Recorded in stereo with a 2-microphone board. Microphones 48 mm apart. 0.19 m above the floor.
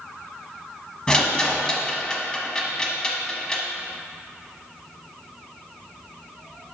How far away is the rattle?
About 0.9 m.